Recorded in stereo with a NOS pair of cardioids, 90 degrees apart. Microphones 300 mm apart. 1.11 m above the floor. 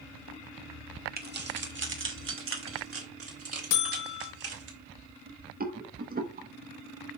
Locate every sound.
1.2 s keys jangling: 30° right, 1.4 m; by 4.7 s 55° right, 4 m
3.7 s a buzzer: 70° left, 1.2 m
5.6 s a rattle: 30° right, 1.2 m